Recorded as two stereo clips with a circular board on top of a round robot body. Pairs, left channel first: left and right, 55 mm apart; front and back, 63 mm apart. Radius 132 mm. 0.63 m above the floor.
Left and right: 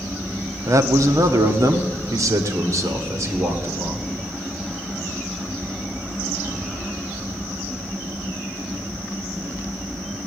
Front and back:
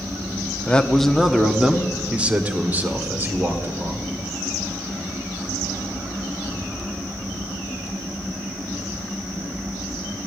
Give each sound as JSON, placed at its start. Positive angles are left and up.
{"t": 0.7, "sound": "a man speaking", "azimuth_deg": -70, "distance_m": 1.1}